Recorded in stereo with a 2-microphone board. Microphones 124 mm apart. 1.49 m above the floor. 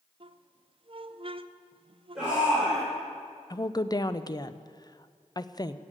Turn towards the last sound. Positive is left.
turn(degrees=35)  # may be behind; listen again after turning